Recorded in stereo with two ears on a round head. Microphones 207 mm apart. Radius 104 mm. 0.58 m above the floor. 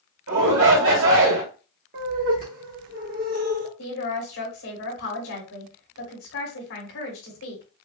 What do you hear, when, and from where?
0.3 s a shout: 65° right (ahead or behind), 1.8 m
1.9 s laughter: 40° right (ahead or behind), 0.8 m
3.8 s a woman speaking: 60° left (ahead or behind), 2.5 m